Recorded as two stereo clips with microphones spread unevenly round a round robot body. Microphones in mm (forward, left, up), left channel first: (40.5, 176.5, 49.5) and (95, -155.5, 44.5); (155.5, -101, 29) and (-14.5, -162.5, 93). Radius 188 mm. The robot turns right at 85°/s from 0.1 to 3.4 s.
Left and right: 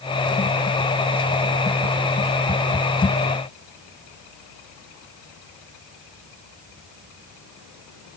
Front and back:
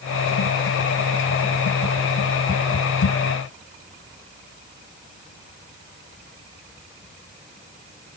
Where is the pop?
No pop in this recording.